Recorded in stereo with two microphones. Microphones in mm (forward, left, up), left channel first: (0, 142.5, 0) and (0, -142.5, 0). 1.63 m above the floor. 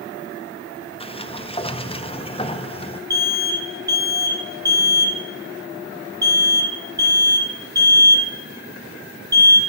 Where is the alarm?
15° right (ahead or behind), 1.9 m.